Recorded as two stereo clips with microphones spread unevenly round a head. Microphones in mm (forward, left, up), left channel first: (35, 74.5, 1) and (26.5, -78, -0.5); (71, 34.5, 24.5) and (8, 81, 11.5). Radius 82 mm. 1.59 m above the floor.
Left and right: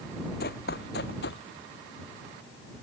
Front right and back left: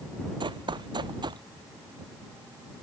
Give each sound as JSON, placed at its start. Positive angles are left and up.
{"t": 0.4, "sound": "running footsteps", "azimuth_deg": 125}